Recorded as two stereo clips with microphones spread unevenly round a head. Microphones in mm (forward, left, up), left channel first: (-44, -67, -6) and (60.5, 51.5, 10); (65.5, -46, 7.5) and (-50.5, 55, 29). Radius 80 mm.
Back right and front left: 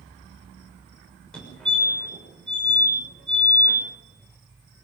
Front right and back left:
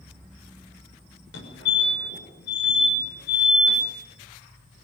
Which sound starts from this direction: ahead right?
A fire alarm, at 1.3 s.